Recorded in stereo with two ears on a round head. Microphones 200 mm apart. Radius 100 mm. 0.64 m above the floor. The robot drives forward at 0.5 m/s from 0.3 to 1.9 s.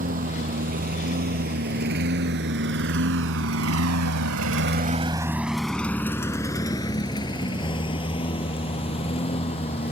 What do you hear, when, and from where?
0.0 s a lawn mower: 40° right (ahead or behind); by 9.9 s 30° left (ahead or behind)